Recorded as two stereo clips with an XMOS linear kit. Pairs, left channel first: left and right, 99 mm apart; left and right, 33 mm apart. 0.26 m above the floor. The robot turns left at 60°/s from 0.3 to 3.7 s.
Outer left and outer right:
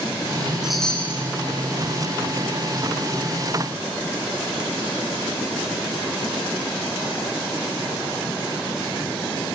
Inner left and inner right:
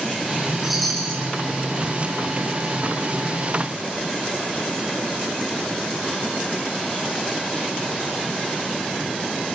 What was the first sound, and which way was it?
A chime, 175° right.